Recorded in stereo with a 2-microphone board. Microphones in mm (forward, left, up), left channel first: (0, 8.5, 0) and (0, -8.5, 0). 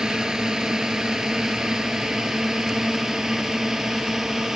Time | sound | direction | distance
0.0 | a drone | 50° right (ahead or behind) | ?